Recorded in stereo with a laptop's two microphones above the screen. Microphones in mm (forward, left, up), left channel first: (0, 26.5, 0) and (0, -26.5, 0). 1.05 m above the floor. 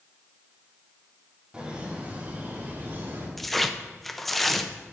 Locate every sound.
1.5 s laughter: 20° right (ahead or behind), 2 m; by 3.3 s 50° right (ahead or behind), 2.5 m
3.4 s tearing paper: 5° left (ahead or behind), 0.5 m